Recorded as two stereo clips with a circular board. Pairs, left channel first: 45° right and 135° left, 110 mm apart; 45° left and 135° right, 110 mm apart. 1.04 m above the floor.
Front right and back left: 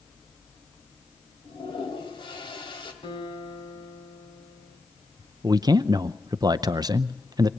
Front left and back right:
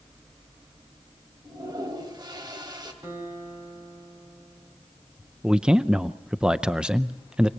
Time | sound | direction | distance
1.4 | a toilet flushing | 85° right | 2.5 m
3.0 | a guitar | 75° right | 6.5 m
5.4 | a man speaking | 145° left | 0.5 m